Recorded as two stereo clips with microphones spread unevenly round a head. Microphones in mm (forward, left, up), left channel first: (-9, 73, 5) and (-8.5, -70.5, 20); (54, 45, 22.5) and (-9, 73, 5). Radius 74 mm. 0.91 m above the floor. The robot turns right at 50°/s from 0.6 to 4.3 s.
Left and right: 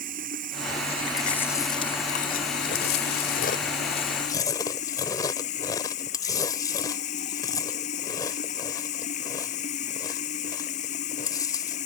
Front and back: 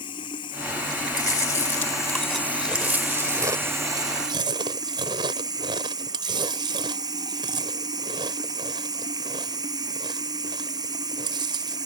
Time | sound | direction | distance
0.0 | running water | 55° right | ?
1.2 | chewing | straight ahead | ?